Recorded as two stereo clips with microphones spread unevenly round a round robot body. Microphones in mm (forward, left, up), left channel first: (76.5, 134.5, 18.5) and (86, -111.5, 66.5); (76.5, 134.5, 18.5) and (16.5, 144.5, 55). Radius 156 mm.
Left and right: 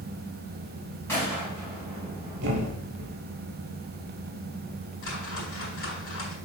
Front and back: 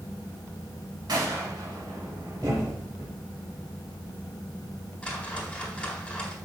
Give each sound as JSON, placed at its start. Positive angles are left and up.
{"t": 1.1, "sound": "a gunshot", "azimuth_deg": 175, "distance_m": 2.5}
{"t": 2.4, "sound": "a thud", "azimuth_deg": -140, "distance_m": 1.7}
{"t": 5.0, "sound": "a whoosh", "azimuth_deg": 60, "distance_m": 3.5}